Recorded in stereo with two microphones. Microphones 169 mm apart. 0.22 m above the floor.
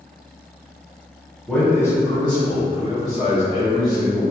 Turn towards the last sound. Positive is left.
turn(degrees=55)  # may be behind; listen again after turning